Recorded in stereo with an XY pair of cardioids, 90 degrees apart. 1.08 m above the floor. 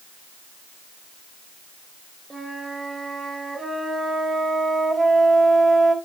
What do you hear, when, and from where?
2.3 s a flute: 25° right, 6.5 m